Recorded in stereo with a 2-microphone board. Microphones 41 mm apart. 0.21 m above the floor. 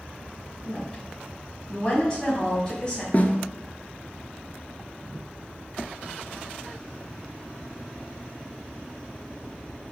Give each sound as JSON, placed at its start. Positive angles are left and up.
{"t": 0.6, "sound": "a woman speaking", "side_deg": 20, "distance_m": 1.6}
{"t": 3.1, "sound": "a snare drum", "side_deg": 40, "distance_m": 0.6}